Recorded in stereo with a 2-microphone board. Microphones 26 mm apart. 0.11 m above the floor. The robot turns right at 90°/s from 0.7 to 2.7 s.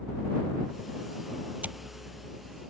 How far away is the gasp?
No gasp in this recording.